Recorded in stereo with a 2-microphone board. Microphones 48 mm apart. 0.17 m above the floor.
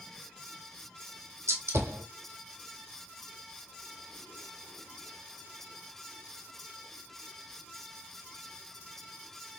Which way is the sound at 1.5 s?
80° right.